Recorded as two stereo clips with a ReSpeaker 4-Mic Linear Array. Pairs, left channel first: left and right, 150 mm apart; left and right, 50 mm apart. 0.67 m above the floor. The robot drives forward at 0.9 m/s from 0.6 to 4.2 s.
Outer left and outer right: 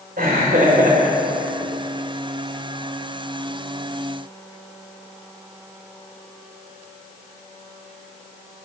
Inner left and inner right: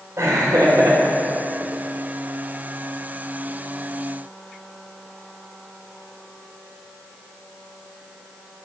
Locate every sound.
0.2 s laughter: 75° right (ahead or behind), 2.5 m; by 1.7 s 65° right (ahead or behind), 2.5 m